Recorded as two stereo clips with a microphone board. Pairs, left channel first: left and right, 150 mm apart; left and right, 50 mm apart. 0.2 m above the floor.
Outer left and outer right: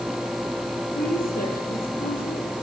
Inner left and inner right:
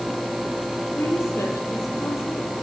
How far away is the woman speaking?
About 7 m.